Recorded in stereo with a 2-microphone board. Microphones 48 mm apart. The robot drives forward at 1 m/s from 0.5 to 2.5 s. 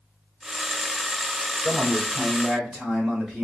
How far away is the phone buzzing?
I don't hear a phone buzzing.